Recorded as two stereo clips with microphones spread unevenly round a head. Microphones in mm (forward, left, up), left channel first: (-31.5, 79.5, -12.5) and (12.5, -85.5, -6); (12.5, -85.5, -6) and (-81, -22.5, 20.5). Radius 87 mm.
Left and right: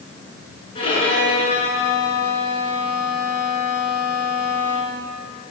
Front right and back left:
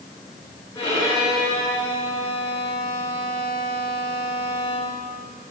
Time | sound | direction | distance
0.8 | a violin | 40° left | 8.5 m